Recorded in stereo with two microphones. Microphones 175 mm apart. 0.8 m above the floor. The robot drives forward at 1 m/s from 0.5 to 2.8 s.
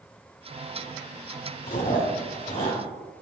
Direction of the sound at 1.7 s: 55° left (ahead or behind).